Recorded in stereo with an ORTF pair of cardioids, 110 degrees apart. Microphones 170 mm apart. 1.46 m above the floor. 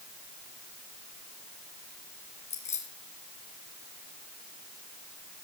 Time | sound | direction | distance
2.5 | keys jangling | 45° left | 5 m